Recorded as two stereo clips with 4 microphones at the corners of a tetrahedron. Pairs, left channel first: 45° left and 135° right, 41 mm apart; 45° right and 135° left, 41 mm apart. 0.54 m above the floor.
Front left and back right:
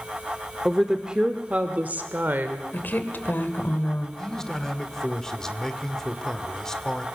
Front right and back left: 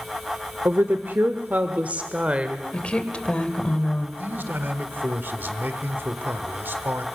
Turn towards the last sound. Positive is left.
turn(degrees=120)